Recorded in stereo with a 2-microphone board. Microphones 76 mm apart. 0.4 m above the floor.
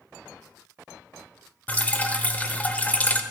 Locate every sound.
1.7 s dripping: 20° left (ahead or behind), 1.0 m